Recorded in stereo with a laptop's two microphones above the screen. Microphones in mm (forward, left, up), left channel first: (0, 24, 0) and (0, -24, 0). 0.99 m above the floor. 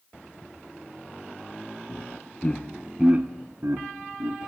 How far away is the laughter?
About 1.0 m.